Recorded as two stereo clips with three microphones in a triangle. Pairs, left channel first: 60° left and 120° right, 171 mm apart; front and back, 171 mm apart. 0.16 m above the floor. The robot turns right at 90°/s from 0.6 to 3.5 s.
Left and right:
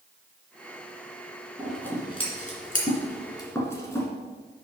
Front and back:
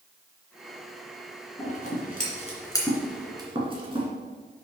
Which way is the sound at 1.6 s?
40° right.